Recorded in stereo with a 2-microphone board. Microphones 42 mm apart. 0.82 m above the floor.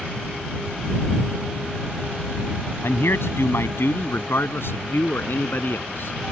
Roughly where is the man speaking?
Left.